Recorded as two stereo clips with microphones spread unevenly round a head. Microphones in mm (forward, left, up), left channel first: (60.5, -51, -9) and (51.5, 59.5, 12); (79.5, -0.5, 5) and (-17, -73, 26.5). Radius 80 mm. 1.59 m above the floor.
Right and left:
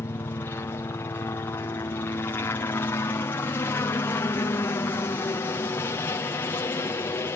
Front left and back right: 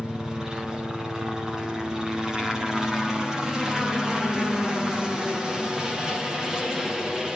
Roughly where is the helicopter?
Ahead right.